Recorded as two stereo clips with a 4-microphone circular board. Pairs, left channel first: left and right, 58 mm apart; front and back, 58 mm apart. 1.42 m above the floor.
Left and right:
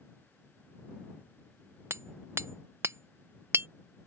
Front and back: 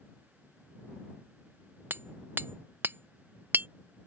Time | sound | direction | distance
1.9 | hammering | 130° right | ?